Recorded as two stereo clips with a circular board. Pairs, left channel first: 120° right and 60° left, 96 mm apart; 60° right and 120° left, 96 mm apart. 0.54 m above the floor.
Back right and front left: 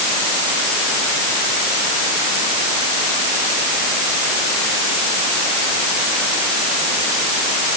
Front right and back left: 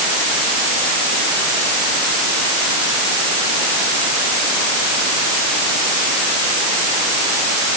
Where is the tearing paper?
I don't hear tearing paper.